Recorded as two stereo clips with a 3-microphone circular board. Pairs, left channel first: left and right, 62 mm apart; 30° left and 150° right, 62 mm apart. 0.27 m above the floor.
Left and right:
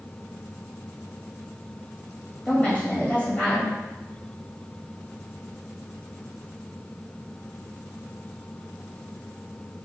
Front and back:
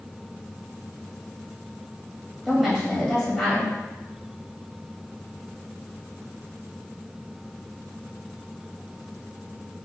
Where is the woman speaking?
125° left, 1.4 m.